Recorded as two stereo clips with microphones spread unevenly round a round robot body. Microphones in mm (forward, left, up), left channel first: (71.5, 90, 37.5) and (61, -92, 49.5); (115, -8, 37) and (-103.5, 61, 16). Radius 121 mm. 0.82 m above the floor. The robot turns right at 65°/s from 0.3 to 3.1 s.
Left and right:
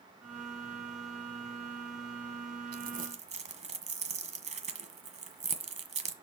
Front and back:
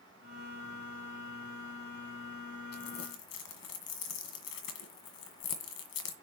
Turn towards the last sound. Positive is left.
turn(degrees=-45)